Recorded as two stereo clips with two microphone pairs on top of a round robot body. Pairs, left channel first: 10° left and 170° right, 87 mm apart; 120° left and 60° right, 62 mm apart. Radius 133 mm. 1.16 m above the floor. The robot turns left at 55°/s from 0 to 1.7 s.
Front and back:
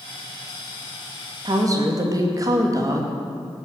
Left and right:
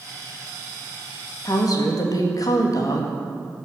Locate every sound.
1.4 s a woman speaking: 155° left, 2 m; by 3.1 s 145° left, 2 m